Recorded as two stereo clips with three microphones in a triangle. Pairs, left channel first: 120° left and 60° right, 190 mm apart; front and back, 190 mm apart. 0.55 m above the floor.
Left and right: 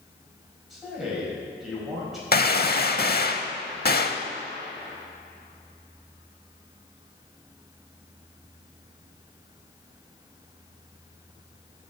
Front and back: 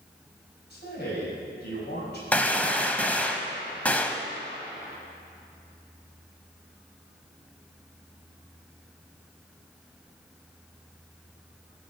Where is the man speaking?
30° left, 4 m.